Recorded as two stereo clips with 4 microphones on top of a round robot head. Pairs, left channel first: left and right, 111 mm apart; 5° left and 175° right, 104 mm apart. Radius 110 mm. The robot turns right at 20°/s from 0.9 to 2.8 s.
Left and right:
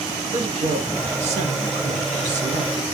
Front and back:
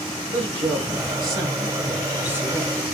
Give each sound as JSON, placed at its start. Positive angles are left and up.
{"t": 0.3, "sound": "a woman speaking", "azimuth_deg": -130, "distance_m": 1.5}